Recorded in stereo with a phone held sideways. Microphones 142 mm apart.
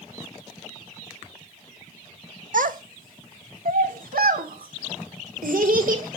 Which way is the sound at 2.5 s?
70° right (ahead or behind).